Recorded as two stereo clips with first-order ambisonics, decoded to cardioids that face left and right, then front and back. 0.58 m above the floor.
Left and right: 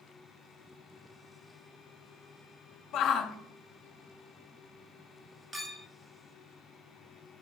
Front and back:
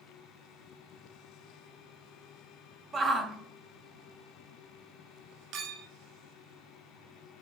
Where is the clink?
165° right, 0.8 m.